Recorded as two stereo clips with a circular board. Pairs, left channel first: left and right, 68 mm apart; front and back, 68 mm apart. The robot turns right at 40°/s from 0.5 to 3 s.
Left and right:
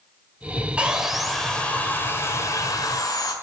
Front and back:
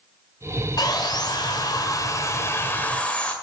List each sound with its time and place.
0.8 s sawing: 20° right, 1.7 m; by 3.3 s 70° left, 1.7 m